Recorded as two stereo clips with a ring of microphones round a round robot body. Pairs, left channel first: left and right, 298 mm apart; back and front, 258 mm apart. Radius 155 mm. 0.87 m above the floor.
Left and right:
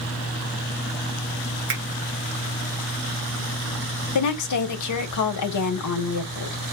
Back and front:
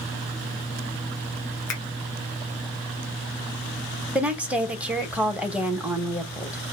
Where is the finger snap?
140° right, 2.5 m.